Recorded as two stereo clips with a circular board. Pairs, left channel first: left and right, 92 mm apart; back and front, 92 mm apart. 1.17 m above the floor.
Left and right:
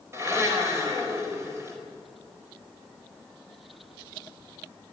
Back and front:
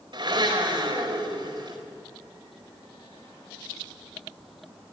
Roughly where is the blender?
Ahead right.